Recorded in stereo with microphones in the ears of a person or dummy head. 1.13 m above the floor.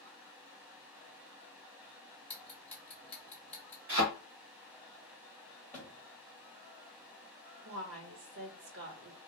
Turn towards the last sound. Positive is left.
turn(degrees=-60)  # may be behind; listen again after turning